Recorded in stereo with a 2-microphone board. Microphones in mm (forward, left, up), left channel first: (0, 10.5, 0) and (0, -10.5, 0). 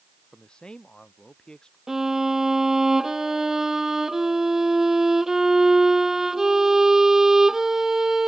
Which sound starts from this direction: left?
A man speaking, at 0.3 s.